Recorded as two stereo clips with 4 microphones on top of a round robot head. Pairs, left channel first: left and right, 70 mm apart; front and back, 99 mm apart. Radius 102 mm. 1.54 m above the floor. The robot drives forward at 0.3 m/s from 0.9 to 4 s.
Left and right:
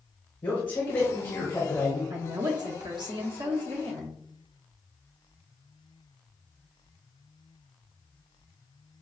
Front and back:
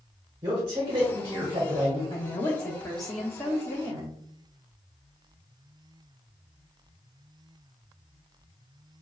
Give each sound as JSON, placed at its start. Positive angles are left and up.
{"t": 0.4, "sound": "a man speaking", "azimuth_deg": 135, "distance_m": 1.1}
{"t": 2.1, "sound": "a woman speaking", "azimuth_deg": -60, "distance_m": 0.7}